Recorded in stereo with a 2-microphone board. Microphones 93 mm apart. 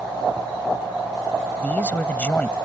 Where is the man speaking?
20° left (ahead or behind).